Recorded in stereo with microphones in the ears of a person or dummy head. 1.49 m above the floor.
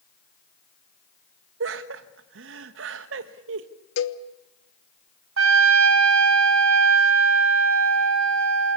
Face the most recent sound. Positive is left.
turn(degrees=-65)  # may be behind; listen again after turning